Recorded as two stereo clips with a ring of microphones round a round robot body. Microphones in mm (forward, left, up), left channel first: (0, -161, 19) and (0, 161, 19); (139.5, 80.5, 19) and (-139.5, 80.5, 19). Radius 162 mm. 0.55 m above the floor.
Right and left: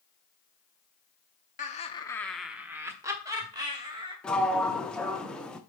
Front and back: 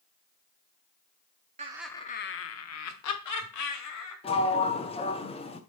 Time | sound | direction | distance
1.6 | laughter | 135° right | 0.7 m
4.2 | a sliding door | 10° right | 0.6 m